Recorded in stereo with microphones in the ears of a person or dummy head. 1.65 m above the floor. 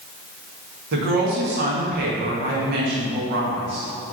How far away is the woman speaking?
About 1.8 m.